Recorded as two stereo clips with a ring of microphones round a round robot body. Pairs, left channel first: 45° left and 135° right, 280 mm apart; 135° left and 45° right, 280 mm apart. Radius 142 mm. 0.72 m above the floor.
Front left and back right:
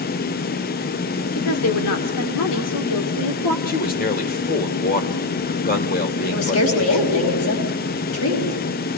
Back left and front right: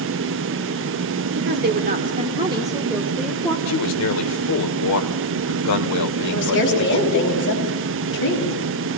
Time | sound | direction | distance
1.4 | a woman speaking | 5° left | 1.8 m
3.7 | a man speaking | 105° left | 2 m
6.3 | a woman speaking | 85° left | 5 m